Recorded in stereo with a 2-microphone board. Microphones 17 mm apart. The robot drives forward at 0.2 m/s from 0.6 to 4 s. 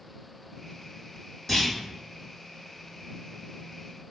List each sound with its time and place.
1.5 s a clunk: 15° left (ahead or behind), 1.7 m